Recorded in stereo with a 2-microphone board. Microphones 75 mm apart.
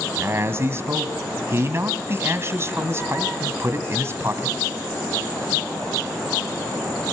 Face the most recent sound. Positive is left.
turn(degrees=-35)  # may be behind; listen again after turning